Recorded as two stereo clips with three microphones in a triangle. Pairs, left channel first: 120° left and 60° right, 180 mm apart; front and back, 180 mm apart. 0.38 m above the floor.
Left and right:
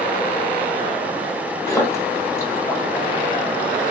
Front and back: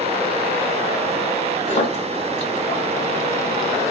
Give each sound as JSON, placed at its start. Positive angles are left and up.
{"t": 1.7, "sound": "a splash", "azimuth_deg": 50, "distance_m": 1.5}